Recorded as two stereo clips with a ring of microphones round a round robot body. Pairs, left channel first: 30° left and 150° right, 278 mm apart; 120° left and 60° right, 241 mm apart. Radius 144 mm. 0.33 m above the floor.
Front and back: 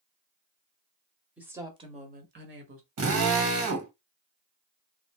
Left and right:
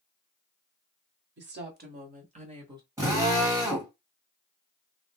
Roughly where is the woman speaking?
Ahead right.